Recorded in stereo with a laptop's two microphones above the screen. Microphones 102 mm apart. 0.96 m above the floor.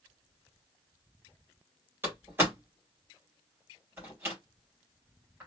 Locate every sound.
2.0 s a door slam: 25° right (ahead or behind), 2.5 m